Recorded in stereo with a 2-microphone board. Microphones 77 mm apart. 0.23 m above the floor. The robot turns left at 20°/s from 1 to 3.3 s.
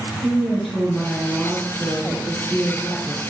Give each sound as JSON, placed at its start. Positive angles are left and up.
{"t": 0.2, "sound": "a woman speaking", "azimuth_deg": 10, "distance_m": 2.0}